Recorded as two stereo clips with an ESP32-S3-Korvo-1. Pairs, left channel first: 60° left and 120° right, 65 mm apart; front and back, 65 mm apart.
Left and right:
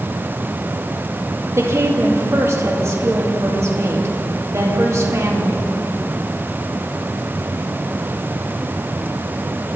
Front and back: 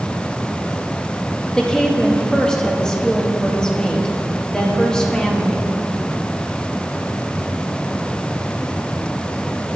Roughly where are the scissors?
No scissors in this recording.